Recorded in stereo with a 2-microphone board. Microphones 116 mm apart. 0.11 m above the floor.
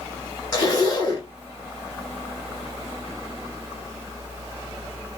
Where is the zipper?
30° left (ahead or behind), 1.6 m.